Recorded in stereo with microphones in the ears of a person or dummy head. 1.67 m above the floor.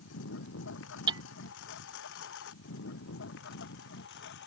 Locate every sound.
0.0 s a lawn mower: 75° left (ahead or behind); by 4.5 s 70° left (ahead or behind)
1.1 s hammering: 25° right (ahead or behind)